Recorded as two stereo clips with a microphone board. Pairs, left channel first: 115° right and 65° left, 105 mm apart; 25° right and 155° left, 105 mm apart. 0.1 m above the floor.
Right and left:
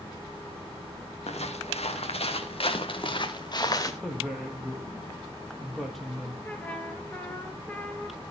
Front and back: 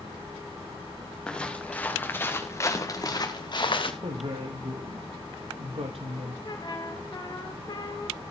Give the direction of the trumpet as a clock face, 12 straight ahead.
1 o'clock.